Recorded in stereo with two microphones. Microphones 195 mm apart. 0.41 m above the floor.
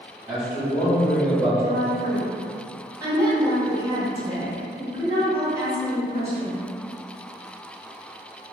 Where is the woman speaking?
15° right (ahead or behind), 1.1 m.